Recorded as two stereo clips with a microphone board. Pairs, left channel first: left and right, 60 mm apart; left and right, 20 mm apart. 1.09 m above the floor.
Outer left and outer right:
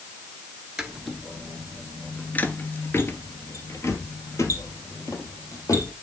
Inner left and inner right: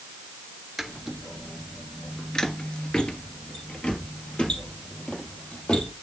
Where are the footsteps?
10° right (ahead or behind), 1.1 m; by 5.9 s 55° left (ahead or behind), 2.5 m.